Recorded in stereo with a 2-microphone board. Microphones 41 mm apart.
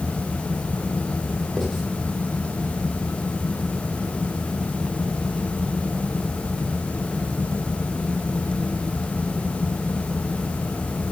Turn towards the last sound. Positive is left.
turn(degrees=-5)  # may be behind; listen again after turning